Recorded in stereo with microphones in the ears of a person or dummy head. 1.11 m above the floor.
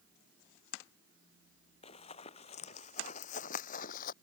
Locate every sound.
1.8 s running footsteps: 35° left (ahead or behind); by 4.1 s 50° left (ahead or behind)